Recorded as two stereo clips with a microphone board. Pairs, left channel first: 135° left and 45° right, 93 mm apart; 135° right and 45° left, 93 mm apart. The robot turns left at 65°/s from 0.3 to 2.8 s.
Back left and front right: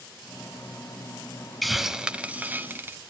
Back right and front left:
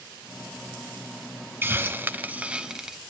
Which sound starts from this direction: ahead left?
A hiss, at 1.6 s.